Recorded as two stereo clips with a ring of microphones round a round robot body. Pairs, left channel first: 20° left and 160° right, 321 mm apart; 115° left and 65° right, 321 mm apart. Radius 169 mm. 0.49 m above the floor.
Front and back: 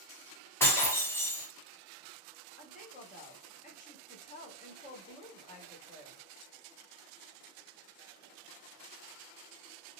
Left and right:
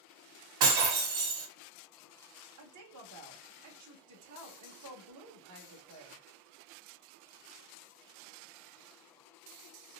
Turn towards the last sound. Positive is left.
turn(degrees=-40)